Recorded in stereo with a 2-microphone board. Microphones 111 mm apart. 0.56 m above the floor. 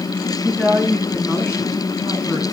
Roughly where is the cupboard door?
No cupboard door in this recording.